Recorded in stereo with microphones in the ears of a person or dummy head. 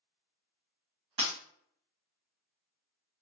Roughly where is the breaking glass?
Right.